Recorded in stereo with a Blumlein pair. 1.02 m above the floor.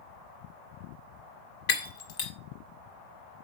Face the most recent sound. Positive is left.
turn(degrees=50)